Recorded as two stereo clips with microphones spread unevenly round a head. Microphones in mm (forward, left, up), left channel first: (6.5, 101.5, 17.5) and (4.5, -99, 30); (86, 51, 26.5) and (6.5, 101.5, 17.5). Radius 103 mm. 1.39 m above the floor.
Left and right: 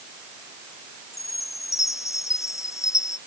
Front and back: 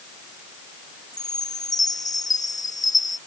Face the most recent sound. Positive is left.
turn(degrees=15)